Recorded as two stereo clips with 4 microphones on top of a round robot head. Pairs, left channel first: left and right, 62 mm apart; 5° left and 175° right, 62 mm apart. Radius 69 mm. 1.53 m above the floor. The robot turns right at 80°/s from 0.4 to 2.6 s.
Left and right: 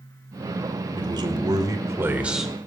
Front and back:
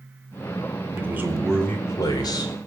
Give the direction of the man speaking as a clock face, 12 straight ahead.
4 o'clock.